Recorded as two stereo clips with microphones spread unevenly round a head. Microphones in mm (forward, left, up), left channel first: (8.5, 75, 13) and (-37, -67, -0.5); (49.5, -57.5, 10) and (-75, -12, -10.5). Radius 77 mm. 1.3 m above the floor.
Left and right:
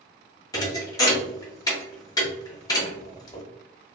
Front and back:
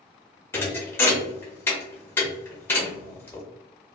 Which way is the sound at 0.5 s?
30° left.